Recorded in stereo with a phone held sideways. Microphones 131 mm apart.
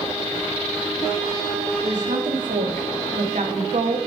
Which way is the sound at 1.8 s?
85° right.